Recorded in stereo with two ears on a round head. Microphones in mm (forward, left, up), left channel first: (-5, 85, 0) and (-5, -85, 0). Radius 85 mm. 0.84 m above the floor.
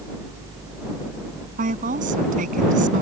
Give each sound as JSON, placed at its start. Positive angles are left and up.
{"t": 1.6, "sound": "a woman speaking", "side_deg": -45}